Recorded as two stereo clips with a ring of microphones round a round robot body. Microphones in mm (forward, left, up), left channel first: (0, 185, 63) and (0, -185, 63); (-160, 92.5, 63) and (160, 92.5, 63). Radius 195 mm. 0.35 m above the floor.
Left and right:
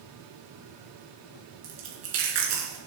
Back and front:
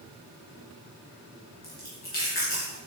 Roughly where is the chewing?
Behind right.